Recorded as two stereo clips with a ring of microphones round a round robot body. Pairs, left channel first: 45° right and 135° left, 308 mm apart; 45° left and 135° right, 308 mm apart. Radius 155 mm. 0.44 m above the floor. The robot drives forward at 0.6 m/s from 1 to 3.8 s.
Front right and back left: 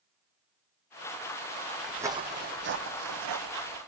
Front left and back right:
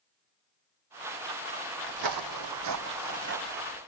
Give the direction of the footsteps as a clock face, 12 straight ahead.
5 o'clock.